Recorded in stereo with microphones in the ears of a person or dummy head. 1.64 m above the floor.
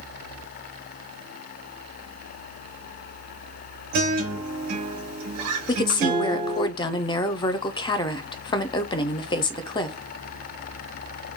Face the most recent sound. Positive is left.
turn(degrees=35)  # may be behind; listen again after turning